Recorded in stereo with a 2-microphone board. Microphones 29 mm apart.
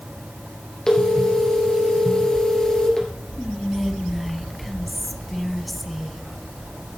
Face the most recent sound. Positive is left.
turn(degrees=0)  # may be behind; listen again after turning